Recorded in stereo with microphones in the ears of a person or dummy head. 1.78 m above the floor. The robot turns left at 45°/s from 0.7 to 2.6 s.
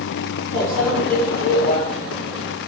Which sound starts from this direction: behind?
A microwave, at 0.5 s.